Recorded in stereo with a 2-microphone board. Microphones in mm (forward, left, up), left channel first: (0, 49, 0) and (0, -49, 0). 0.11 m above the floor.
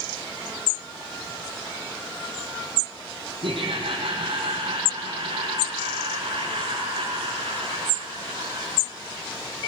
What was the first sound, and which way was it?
Laughter, 60° right (ahead or behind).